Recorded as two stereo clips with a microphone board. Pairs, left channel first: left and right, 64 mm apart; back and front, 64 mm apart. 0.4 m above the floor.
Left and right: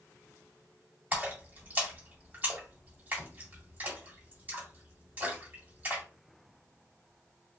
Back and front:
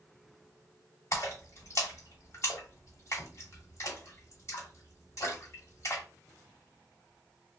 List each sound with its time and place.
1.1 s a splash: 150° right, 1.7 m